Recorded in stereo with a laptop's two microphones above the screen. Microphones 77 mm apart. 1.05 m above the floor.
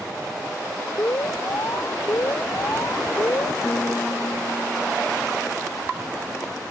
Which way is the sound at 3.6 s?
40° left (ahead or behind).